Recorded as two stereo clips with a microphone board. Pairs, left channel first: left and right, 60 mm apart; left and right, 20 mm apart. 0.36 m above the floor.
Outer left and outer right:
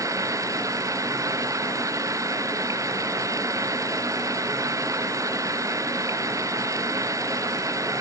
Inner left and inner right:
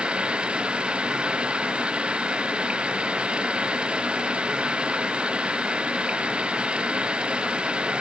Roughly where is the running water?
Right.